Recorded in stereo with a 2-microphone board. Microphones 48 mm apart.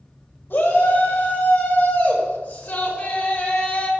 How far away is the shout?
About 5.5 m.